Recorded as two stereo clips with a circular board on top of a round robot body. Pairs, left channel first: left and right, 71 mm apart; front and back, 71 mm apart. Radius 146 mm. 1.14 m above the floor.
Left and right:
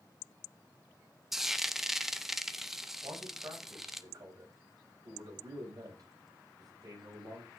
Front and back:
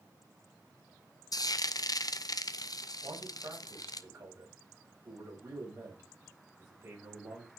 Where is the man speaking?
125° right, 7 m.